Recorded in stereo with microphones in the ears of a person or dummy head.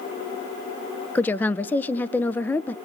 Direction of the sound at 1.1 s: 10° left (ahead or behind).